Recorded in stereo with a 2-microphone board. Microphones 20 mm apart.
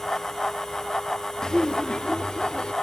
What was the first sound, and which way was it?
Laughter, 40° left (ahead or behind).